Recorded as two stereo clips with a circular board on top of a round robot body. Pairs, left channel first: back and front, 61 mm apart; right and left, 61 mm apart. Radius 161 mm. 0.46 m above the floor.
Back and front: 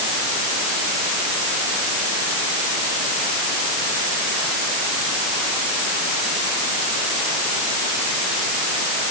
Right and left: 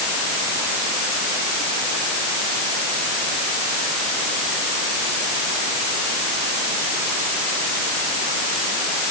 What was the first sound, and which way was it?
Only background noise.